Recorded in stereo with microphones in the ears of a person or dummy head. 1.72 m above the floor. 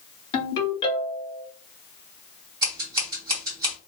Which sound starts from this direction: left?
A ringtone, at 0.3 s.